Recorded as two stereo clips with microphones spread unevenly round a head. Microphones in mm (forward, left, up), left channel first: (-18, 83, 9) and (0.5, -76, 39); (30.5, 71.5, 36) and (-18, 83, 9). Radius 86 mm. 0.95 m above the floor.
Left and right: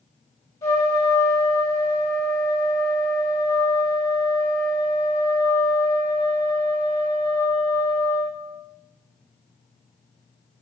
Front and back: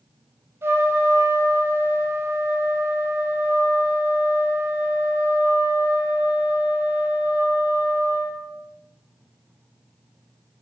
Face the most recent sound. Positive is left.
turn(degrees=165)